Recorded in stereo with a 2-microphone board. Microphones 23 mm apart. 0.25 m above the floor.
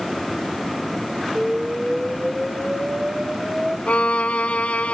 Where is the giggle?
I don't hear a giggle.